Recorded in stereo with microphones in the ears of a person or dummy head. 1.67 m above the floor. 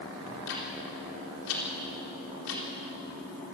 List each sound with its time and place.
0.3 s ticking: 80° left, 4 m